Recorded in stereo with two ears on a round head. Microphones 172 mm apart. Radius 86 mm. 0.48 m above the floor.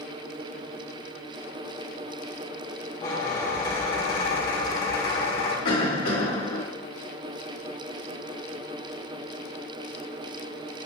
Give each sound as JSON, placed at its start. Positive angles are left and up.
{"t": 3.0, "sound": "a squeak", "side_deg": 25, "distance_m": 1.7}
{"t": 5.7, "sound": "a cough", "side_deg": 50, "distance_m": 1.8}